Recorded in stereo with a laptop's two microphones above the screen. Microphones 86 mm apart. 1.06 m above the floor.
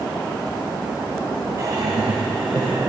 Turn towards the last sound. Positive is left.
turn(degrees=-55)  # may be behind; listen again after turning